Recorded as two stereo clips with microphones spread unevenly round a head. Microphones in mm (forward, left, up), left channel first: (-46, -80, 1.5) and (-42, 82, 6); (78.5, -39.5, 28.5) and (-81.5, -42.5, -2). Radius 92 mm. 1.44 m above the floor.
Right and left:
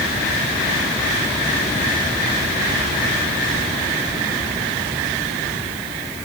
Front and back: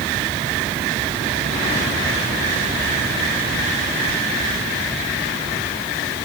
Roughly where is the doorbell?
I don't hear a doorbell.